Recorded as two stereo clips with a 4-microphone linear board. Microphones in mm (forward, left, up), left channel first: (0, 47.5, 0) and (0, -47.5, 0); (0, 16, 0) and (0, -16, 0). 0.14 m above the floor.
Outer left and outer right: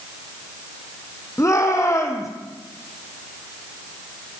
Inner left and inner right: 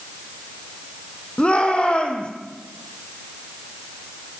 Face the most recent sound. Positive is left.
turn(degrees=35)  # may be behind; listen again after turning